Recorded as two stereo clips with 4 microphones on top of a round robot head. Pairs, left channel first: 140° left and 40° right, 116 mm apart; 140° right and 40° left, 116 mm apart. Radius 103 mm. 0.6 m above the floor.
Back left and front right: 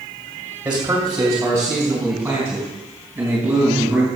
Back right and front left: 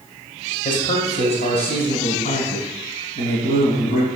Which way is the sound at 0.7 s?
120° right.